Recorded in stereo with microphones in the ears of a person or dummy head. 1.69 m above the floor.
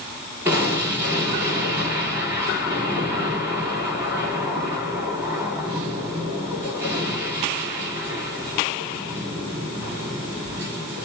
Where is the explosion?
15° right (ahead or behind), 1.7 m.